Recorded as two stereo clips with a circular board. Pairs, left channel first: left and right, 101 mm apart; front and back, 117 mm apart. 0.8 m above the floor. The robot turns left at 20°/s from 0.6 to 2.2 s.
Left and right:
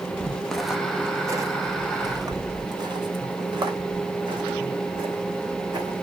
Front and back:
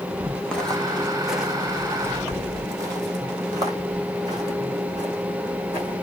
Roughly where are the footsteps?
Ahead left.